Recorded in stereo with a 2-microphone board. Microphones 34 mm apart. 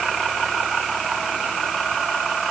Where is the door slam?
No door slam in this recording.